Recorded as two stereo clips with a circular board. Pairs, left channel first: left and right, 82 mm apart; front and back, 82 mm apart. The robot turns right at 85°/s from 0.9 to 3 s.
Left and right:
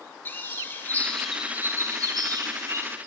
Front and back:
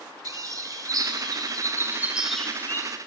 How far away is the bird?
About 1.1 m.